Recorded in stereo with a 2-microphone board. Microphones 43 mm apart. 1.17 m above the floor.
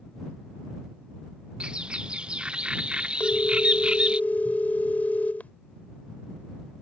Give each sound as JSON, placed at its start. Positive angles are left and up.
{"t": 1.6, "sound": "a bird", "side_deg": -25}
{"t": 3.2, "sound": "a phone ringing", "side_deg": 45}